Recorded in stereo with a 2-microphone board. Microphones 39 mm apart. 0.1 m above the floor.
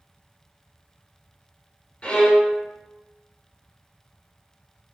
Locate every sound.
2.0 s a violin: 25° left (ahead or behind), 1.5 m